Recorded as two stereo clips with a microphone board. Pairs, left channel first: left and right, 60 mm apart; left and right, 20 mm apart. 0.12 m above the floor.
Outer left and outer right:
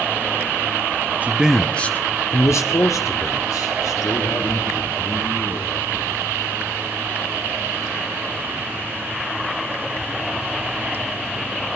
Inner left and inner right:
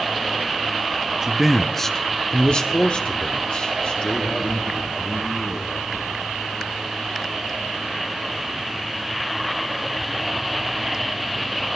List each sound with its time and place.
1.2 s a man speaking: 30° right (ahead or behind), 1.2 m; by 5.9 s 80° left, 7 m